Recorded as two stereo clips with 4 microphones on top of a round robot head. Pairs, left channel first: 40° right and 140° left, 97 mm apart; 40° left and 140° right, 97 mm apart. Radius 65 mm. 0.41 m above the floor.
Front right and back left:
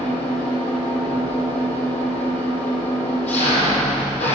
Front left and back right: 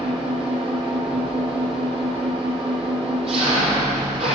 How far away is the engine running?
About 5 m.